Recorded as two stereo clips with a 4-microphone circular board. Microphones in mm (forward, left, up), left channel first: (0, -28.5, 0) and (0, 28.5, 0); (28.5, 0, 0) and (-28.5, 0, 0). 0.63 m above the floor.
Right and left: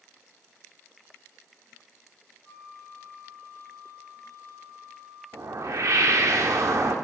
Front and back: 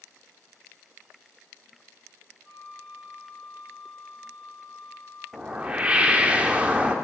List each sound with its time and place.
2.4 s a flute: 35° right, 1.6 m
5.3 s a whoosh: 115° left, 0.6 m